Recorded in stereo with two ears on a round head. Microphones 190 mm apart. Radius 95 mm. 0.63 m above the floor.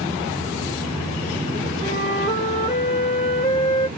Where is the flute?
20° left (ahead or behind), 1.4 m.